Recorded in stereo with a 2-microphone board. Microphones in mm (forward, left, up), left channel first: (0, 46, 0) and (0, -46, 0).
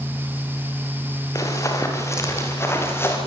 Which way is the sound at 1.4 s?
35° left (ahead or behind).